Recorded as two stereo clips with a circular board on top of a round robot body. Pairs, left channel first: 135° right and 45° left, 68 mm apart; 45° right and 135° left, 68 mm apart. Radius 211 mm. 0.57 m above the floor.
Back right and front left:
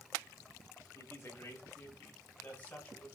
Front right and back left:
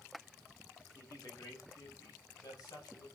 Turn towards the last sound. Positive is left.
turn(degrees=-65)